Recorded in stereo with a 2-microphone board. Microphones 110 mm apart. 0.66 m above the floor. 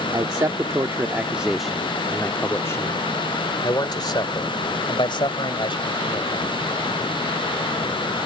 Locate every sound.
0.1 s a man speaking: 45° right (ahead or behind); by 6.5 s 55° left (ahead or behind)